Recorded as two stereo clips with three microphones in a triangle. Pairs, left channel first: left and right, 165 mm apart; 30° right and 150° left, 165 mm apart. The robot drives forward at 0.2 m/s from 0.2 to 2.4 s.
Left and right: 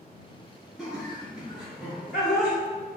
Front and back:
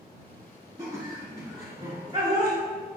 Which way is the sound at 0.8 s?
175° right.